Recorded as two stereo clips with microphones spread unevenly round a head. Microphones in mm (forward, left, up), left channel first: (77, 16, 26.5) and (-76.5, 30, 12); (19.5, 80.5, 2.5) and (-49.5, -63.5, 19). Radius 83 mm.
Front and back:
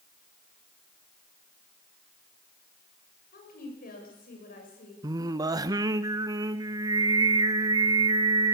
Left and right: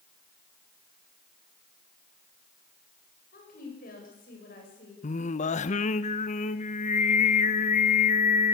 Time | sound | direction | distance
3.3 | a woman speaking | 25° left | 7 m
5.0 | singing | 110° left | 0.8 m